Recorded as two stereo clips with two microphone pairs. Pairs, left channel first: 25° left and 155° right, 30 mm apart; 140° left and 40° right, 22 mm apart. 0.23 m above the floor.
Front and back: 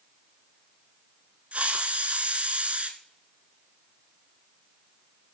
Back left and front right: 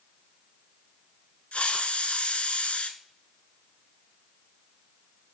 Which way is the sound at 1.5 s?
165° left.